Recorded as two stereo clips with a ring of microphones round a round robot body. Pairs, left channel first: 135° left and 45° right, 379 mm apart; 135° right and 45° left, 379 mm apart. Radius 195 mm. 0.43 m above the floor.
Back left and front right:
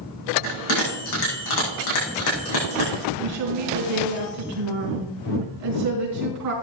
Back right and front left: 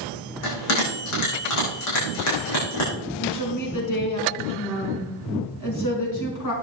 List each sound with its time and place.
0.4 s a bell: 175° left, 6 m
3.2 s a woman speaking: 90° right, 4.5 m